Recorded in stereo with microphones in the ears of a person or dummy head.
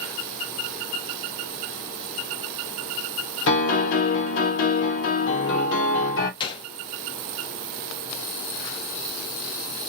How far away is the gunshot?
About 0.6 m.